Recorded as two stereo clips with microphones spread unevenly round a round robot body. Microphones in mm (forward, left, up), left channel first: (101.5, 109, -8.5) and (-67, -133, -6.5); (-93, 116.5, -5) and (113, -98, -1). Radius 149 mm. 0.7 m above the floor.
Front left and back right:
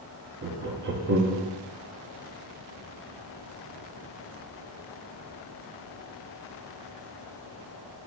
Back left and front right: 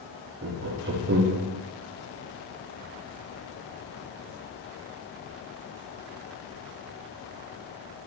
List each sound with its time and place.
0.4 s laughter: 85° right, 0.6 m